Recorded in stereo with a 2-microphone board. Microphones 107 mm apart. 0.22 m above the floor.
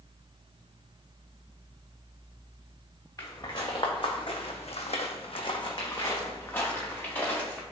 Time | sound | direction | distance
3.2 | footsteps | 35° left (ahead or behind) | 1.4 m